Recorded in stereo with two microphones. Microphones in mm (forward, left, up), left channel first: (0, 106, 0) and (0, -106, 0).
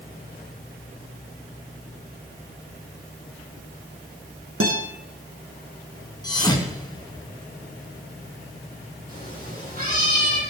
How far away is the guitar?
About 4.5 m.